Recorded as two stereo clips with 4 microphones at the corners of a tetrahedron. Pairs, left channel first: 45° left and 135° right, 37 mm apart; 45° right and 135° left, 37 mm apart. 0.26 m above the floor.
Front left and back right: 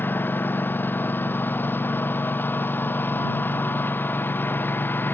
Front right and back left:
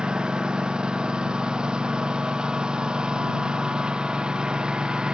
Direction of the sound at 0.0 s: 70° left.